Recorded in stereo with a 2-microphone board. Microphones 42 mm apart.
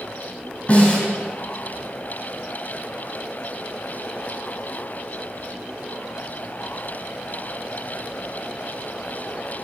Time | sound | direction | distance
0.7 | a snare drum | 30° left (ahead or behind) | 3 m